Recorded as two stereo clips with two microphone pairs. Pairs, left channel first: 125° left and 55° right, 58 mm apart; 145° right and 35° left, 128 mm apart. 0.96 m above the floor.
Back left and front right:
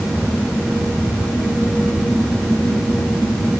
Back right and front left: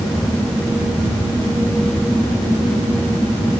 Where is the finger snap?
No finger snap in this recording.